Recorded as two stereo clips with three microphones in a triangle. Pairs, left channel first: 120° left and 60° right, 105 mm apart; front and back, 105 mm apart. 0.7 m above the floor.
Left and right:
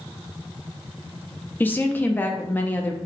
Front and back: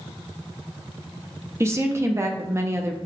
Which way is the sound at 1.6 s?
165° left.